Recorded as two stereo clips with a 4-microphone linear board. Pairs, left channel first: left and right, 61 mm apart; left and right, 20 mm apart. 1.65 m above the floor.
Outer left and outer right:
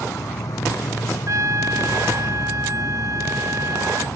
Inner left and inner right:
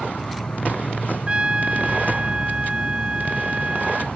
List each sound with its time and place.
0.0 s an insect: 80° left
1.3 s a trumpet: 65° right (ahead or behind)